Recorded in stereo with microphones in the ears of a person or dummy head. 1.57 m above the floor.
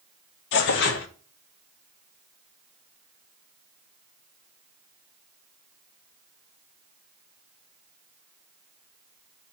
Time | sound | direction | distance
0.5 | tearing paper | 55° left (ahead or behind) | 0.7 m